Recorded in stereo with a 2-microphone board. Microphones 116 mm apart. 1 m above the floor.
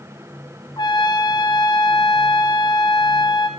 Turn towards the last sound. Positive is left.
turn(degrees=40)  # may be behind; listen again after turning